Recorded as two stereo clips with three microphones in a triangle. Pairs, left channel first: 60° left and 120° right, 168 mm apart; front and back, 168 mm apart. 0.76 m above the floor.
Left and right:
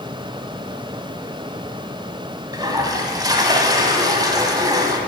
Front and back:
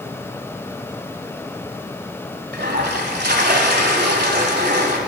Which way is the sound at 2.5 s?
175° left.